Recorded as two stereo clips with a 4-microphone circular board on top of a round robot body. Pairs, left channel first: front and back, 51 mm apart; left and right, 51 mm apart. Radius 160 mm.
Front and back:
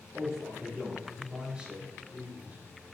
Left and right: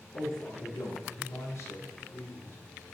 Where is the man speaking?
95° left, 4.5 m; by 2.5 s 120° left, 4 m.